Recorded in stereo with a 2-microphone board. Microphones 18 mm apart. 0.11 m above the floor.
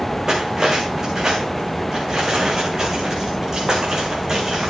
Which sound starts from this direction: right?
Cutlery clinking, at 0.3 s.